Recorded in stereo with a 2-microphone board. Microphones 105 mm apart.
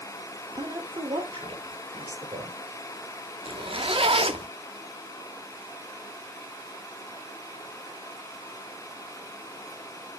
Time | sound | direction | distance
0.6 | a woman speaking | 40° right (ahead or behind) | 2.0 m
3.5 | a zipper | 60° right (ahead or behind) | 0.8 m